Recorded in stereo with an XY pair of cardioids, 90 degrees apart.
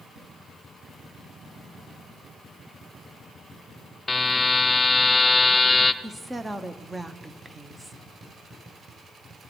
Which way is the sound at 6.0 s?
20° right.